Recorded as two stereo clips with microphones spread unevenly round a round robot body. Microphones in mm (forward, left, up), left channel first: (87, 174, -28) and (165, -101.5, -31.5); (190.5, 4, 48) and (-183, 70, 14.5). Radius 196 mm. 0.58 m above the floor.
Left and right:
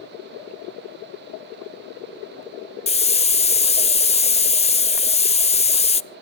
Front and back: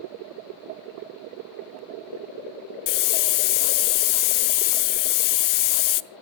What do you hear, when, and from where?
2.9 s a hiss: 35° left, 0.6 m